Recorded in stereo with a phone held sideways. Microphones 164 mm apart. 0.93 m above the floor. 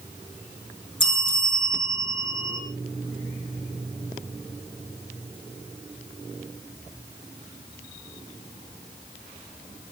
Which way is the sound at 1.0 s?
30° left (ahead or behind).